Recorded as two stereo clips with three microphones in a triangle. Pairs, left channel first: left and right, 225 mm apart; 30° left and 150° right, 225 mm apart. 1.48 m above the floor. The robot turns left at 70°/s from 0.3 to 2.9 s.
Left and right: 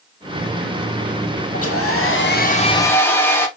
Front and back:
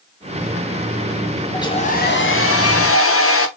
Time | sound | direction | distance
1.5 | a hair dryer | 105° left | 0.7 m